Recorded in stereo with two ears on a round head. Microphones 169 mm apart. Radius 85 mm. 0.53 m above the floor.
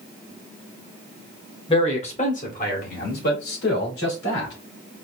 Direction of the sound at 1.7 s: 30° left (ahead or behind).